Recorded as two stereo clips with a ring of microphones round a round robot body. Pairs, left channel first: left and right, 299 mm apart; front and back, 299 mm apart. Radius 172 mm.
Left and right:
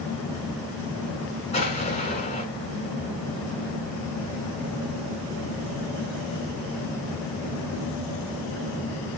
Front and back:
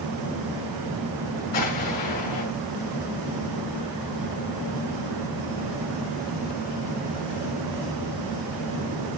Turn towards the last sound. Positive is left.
turn(degrees=20)